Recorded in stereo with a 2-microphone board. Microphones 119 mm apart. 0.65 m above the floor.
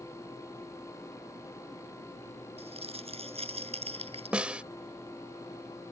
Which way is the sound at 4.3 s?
10° right (ahead or behind).